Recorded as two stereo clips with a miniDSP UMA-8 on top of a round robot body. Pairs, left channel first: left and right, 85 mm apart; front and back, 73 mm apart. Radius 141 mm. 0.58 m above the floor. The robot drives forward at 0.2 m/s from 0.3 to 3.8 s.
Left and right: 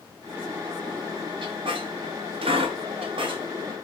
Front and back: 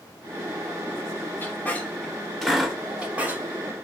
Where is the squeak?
65° right, 0.5 m; by 3.4 s 110° right, 0.5 m.